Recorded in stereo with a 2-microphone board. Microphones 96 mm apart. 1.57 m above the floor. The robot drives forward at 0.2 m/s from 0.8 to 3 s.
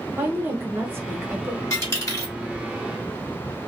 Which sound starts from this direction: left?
A dropped coin, at 1.7 s.